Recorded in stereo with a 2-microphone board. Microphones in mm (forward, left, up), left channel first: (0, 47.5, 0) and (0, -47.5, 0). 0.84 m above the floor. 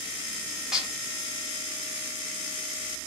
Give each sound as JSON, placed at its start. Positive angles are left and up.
{"t": 0.7, "sound": "dishes clattering", "side_deg": -5, "distance_m": 1.2}